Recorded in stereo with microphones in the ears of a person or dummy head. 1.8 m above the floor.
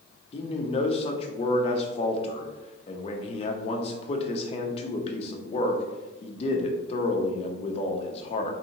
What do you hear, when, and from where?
0.3 s a man speaking: 40° left (ahead or behind), 0.7 m